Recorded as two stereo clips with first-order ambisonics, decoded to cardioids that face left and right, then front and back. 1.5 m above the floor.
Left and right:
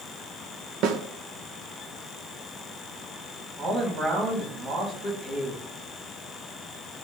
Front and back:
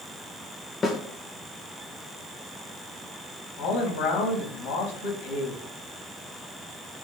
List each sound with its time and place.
0.8 s a snare drum: 70° right, 1.2 m
3.6 s a man speaking: 20° right, 3.5 m